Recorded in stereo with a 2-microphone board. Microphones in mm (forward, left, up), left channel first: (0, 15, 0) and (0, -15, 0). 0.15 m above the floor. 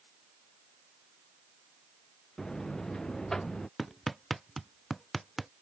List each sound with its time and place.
2.4 s a buzzer: 25° left (ahead or behind)
3.8 s hammering: 5° right (ahead or behind)